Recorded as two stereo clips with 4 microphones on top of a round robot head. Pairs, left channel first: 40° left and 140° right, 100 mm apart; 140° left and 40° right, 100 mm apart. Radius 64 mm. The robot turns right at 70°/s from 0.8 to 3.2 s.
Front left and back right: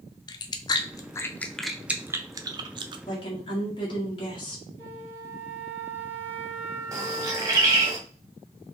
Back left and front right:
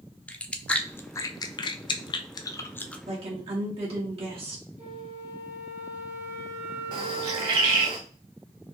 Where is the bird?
85° right, 0.8 m.